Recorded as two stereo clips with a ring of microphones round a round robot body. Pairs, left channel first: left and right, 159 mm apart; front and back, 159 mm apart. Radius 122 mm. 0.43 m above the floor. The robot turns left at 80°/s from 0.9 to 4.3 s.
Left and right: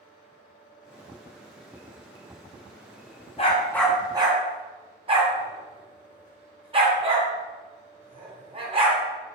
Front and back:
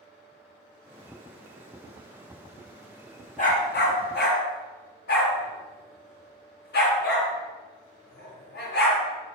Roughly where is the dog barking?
Ahead left.